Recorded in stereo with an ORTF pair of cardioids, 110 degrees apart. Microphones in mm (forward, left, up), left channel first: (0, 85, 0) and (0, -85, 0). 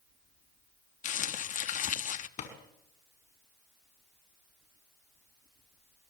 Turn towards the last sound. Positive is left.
turn(degrees=45)